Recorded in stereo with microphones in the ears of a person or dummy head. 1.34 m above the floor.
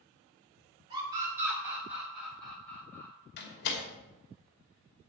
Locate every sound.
0.9 s a scream: 25° right (ahead or behind), 5.5 m; by 3.1 s 10° left (ahead or behind), 6 m
3.4 s a door slam: 60° left (ahead or behind), 2.5 m